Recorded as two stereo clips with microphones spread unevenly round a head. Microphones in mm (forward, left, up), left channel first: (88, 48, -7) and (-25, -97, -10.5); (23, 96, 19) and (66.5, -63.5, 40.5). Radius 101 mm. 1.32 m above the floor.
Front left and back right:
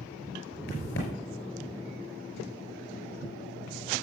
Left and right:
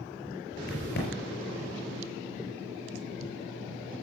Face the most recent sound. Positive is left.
turn(degrees=90)